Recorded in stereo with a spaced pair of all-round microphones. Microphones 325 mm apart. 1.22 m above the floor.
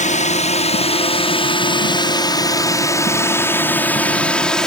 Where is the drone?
20° left (ahead or behind); by 4.7 s centre (ahead or behind).